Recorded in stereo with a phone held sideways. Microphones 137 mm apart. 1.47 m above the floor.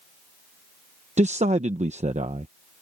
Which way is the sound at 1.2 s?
65° right (ahead or behind).